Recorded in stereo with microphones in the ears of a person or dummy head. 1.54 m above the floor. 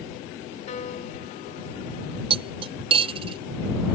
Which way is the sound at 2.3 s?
35° right (ahead or behind).